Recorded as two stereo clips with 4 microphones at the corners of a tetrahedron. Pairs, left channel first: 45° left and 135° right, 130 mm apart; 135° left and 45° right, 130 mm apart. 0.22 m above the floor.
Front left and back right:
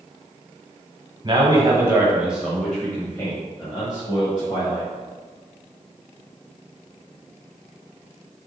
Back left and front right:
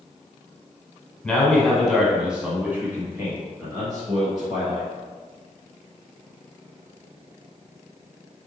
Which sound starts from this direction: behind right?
A man speaking, at 1.2 s.